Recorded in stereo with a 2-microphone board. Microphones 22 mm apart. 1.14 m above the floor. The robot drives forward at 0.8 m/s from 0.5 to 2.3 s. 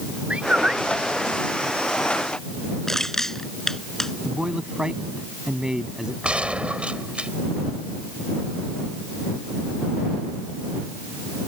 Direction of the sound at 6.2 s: 65° right (ahead or behind).